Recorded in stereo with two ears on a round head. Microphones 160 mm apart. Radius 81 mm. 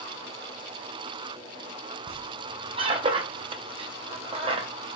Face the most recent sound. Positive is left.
turn(degrees=-30)  # may be behind; listen again after turning